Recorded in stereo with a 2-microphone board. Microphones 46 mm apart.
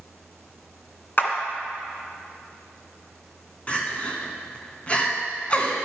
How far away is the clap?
About 1.9 m.